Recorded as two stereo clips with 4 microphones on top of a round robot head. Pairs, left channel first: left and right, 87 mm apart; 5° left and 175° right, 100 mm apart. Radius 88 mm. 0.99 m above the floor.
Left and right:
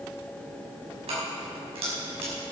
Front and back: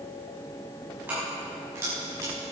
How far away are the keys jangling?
About 6 m.